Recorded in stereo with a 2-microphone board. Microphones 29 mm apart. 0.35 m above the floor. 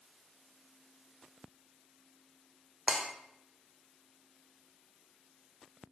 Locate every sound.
2.9 s breaking glass: 30° right (ahead or behind), 1.6 m